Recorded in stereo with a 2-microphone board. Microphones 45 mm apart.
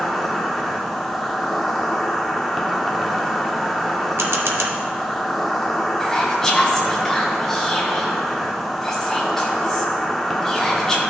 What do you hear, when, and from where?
0.0 s an insect: centre (ahead or behind), 1.0 m
4.2 s a camera shutter: 65° right (ahead or behind), 1.0 m
6.0 s whispering: 10° left (ahead or behind), 0.5 m